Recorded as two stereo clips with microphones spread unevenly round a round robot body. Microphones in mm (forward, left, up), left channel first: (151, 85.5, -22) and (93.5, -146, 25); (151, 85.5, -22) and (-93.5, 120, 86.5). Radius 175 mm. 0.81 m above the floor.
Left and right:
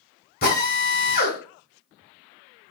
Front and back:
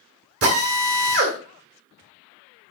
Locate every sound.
0.4 s a drill: 140° left, 2.5 m